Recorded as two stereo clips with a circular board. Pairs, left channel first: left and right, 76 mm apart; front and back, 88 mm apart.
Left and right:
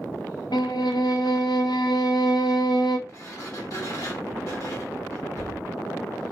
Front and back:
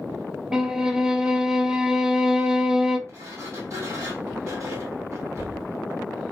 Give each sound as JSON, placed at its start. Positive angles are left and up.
{"t": 0.5, "sound": "a violin", "azimuth_deg": 100, "distance_m": 0.5}
{"t": 3.1, "sound": "a sliding door", "azimuth_deg": 130, "distance_m": 1.6}